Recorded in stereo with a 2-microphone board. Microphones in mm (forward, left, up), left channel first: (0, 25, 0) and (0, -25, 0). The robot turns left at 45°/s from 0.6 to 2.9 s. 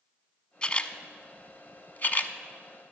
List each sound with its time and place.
0.6 s a camera shutter: 20° left (ahead or behind), 0.6 m; by 2.4 s 35° left (ahead or behind), 0.6 m